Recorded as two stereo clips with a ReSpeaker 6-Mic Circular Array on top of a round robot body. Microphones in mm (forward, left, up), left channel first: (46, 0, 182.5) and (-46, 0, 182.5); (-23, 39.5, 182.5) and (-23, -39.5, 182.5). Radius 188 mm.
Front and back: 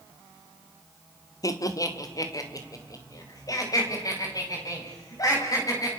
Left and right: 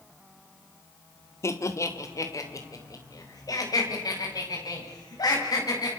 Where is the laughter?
45° left, 2.5 m; by 5.9 s 50° left, 8 m.